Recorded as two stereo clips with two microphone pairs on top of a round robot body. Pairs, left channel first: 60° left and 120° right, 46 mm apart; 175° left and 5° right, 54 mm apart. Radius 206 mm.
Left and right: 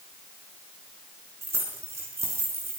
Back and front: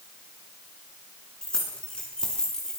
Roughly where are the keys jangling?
Right.